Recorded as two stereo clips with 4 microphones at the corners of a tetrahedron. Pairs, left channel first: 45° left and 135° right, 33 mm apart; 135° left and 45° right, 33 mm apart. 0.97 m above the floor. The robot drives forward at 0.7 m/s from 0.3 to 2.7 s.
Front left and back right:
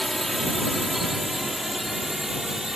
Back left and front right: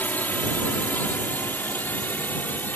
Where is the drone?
135° left; by 2.8 s 145° left.